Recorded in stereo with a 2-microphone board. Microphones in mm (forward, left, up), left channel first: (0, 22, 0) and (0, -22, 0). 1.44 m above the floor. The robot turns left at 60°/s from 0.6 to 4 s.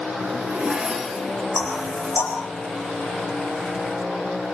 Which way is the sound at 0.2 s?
150° right.